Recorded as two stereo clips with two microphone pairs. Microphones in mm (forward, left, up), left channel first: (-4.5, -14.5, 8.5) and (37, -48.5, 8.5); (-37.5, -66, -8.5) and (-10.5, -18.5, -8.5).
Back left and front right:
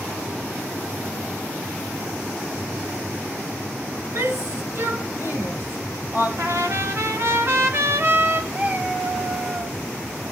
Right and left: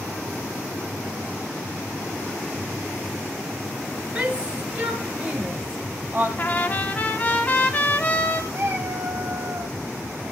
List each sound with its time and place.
4.2 s a shout: 10° right, 6 m
6.4 s a trumpet: 65° right, 2.5 m
8.5 s a cat meowing: 15° left, 5.5 m